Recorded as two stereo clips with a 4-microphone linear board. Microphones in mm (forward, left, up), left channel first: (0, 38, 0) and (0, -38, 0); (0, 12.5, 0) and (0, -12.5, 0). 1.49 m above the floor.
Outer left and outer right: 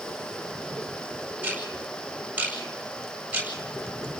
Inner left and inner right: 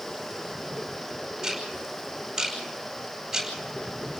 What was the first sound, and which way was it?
Ticking, 15° right (ahead or behind).